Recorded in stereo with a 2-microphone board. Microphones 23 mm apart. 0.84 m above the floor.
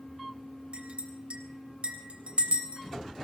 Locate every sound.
0.7 s a clink: 55° right (ahead or behind), 3 m